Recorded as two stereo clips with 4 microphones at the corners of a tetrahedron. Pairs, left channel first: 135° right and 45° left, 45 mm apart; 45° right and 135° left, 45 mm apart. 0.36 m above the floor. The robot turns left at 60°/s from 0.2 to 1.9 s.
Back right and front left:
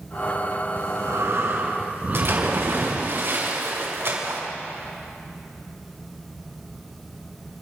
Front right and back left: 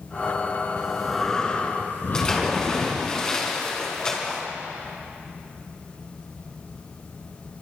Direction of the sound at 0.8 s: 65° left.